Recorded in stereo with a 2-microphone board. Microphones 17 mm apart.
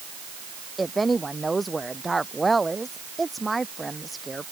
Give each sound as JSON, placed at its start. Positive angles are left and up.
{"t": 0.8, "sound": "a woman speaking", "side_deg": 5}